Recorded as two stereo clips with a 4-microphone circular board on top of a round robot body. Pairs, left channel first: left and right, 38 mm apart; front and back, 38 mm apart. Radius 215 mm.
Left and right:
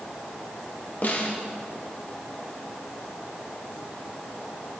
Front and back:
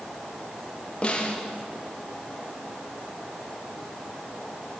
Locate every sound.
1.0 s a snare drum: 55° left, 2.5 m